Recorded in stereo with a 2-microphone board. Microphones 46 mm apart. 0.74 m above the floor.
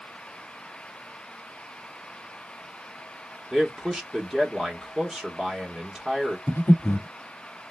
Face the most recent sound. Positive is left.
turn(degrees=65)  # may be behind; listen again after turning